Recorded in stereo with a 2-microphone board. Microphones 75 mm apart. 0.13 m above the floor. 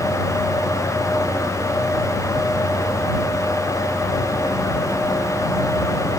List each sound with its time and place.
Only background noise.